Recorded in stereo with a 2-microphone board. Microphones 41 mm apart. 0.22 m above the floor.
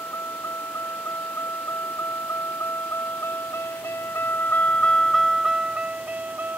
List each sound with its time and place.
0.0 s a vehicle: 80° left; by 6.6 s 45° right (ahead or behind)